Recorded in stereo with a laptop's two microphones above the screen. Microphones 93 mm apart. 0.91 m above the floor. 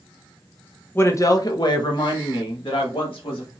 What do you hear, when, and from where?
0.9 s a woman speaking: 25° left (ahead or behind), 0.7 m; by 3.5 s 70° left (ahead or behind), 2.0 m